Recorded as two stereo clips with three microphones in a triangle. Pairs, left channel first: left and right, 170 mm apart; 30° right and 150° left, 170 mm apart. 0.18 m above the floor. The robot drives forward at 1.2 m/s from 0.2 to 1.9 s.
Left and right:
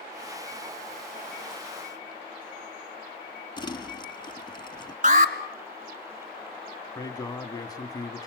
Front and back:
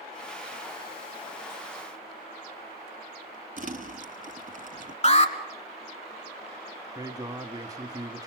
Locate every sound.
3.6 s crumpling: 145° left, 1.0 m
5.0 s an alarm: 70° right, 1.4 m
7.0 s a man speaking: 120° left, 1.2 m